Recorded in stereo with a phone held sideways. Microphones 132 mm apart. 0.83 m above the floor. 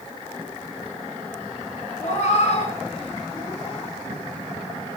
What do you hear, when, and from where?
2.0 s a cat meowing: 60° left (ahead or behind), 5.5 m; by 3.9 s 40° left (ahead or behind), 5 m